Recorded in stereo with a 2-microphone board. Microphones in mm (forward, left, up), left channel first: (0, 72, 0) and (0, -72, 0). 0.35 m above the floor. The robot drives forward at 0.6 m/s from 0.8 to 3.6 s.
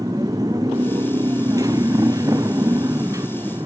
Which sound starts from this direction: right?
A motorcycle, at 0.0 s.